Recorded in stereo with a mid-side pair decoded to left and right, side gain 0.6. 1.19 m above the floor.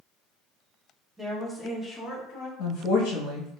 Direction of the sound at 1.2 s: 15° right.